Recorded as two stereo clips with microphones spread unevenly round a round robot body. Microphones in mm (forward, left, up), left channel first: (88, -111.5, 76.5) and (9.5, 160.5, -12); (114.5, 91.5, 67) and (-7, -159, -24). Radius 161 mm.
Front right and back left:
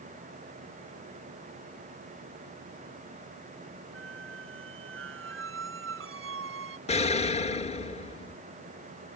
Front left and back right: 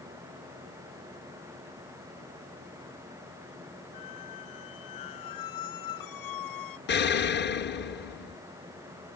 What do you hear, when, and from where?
3.9 s a squeak: 60° left
6.9 s an explosion: 5° left